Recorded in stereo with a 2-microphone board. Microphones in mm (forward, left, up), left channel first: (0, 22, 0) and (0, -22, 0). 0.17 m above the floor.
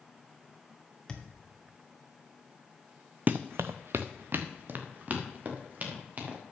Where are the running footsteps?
40° right (ahead or behind), 0.5 m; by 6.4 s 35° right (ahead or behind), 3 m.